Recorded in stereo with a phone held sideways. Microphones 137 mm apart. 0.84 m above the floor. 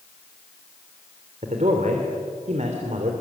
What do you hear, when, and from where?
1.4 s a man speaking: 60° right (ahead or behind), 3 m